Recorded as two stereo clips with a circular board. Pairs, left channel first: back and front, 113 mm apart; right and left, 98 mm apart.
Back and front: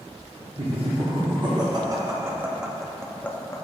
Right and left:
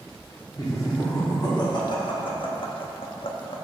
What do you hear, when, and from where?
0.6 s laughter: 35° right, 1.6 m; by 3.6 s 120° right, 0.9 m